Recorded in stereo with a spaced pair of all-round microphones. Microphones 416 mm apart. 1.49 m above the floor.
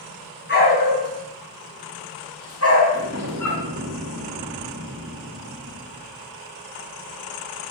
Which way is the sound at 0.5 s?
25° left (ahead or behind).